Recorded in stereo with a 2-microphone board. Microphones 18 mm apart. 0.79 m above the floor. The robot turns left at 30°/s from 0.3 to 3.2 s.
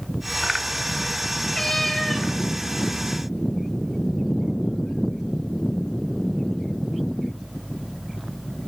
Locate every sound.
1.5 s a cat meowing: 20° left (ahead or behind), 3 m; by 2.3 s 5° right (ahead or behind), 3 m